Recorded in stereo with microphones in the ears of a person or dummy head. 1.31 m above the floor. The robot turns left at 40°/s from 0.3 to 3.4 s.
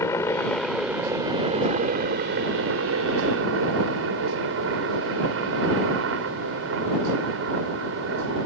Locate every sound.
0.0 s a helicopter: 15° left; by 8.5 s 110° right